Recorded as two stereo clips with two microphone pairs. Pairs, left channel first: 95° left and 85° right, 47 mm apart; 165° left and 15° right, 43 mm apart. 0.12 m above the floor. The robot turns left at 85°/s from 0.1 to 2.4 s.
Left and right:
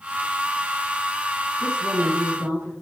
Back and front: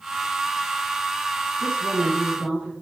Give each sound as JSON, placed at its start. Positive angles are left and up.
{"t": 1.6, "sound": "a woman speaking", "azimuth_deg": -20, "distance_m": 5.0}